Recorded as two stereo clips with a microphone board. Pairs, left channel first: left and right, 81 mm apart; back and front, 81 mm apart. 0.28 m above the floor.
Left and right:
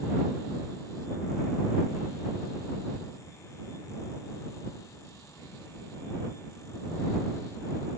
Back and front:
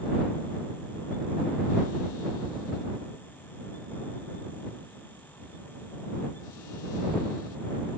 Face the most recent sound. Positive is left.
No sound to turn to.